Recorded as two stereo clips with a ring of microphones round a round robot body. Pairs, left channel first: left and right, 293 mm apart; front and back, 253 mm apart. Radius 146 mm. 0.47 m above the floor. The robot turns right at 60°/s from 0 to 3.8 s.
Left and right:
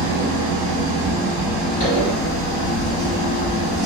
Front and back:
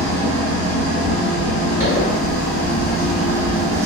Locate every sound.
0.0 s an engine running: 100° right, 1.1 m; by 3.9 s 130° left, 1.1 m
1.8 s a zipper: 40° left, 1.7 m; by 3.9 s 160° left, 1.7 m